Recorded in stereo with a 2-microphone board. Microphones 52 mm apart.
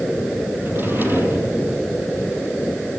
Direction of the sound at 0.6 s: 45° right (ahead or behind).